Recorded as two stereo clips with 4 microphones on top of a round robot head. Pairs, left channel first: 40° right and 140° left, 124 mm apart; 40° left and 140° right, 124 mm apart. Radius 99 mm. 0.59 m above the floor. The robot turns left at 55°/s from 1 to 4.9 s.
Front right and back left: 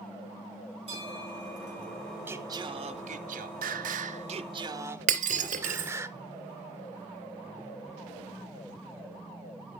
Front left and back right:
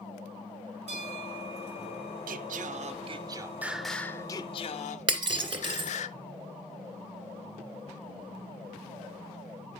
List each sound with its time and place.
0.9 s a bell: 175° right, 7 m; by 2.2 s 120° left, 7 m
2.3 s singing: 145° right, 0.6 m; by 6.1 s 70° left, 0.6 m
5.1 s breaking glass: 165° left, 2 m